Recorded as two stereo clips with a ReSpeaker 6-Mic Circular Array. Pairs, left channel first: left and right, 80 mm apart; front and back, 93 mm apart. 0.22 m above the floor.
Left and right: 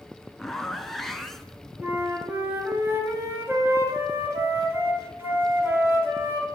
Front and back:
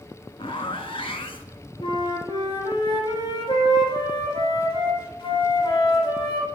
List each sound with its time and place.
0.4 s a zipper: 5° left, 0.7 m
1.8 s a flute: 25° right, 2 m